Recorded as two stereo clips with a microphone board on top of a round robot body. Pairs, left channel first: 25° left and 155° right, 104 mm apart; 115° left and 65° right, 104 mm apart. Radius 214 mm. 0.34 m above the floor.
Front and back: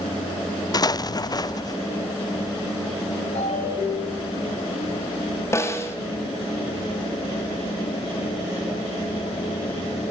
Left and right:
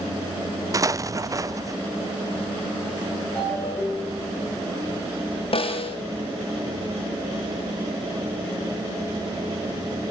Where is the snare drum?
85° left, 4 m.